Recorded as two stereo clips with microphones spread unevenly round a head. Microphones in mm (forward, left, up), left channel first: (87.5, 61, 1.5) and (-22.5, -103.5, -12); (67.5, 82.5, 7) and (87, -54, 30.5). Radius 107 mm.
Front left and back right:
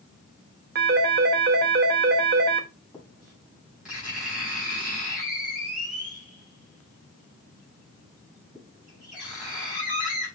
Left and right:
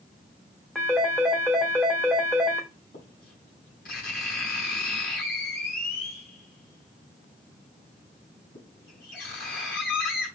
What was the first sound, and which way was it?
A phone ringing, 170° right.